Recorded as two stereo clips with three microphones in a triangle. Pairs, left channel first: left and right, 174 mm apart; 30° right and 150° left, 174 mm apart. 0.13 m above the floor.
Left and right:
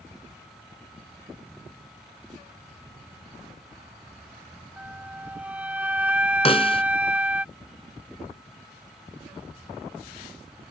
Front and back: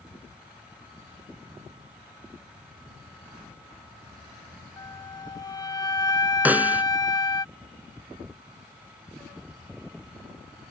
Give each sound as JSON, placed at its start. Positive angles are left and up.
{"t": 4.8, "sound": "a flute", "azimuth_deg": -20}
{"t": 6.5, "sound": "a snare drum", "azimuth_deg": 75}